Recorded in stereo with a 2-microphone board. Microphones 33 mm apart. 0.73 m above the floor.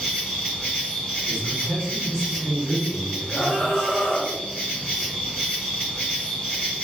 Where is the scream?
35° left (ahead or behind), 1.2 m.